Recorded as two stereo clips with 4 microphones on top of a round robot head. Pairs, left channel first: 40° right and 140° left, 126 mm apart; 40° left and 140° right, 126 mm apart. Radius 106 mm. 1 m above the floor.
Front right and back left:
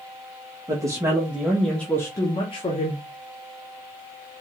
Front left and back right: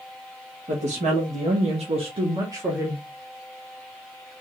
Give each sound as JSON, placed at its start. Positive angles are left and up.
{"t": 0.7, "sound": "a woman speaking", "azimuth_deg": -160, "distance_m": 1.7}